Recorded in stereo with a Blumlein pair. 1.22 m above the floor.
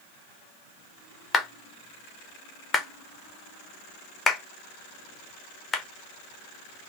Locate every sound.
1.3 s a clap: 15° left, 0.7 m